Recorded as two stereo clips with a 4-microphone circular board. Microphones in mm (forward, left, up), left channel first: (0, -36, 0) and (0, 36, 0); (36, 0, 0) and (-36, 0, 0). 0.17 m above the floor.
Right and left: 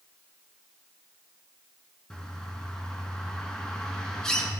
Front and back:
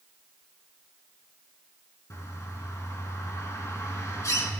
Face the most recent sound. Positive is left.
turn(degrees=-15)